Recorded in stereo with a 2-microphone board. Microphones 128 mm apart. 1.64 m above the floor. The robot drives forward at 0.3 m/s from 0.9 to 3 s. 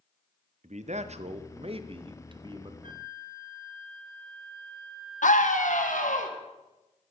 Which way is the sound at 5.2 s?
85° left.